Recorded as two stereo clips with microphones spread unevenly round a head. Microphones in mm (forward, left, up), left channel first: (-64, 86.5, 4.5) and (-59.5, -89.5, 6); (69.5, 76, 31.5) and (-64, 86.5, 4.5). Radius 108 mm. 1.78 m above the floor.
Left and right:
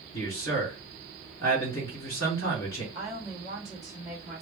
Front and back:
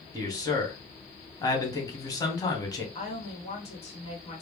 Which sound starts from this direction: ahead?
A woman speaking, at 3.0 s.